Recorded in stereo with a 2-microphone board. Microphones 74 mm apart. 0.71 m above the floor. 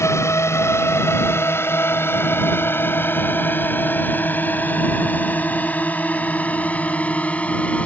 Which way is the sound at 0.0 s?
35° left (ahead or behind).